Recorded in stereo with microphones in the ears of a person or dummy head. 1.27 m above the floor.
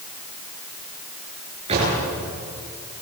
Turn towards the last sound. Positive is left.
turn(degrees=-30)  # may be behind; listen again after turning